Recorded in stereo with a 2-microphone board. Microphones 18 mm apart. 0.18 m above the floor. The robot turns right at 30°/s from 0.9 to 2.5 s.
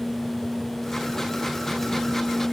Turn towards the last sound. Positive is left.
No sound to turn to.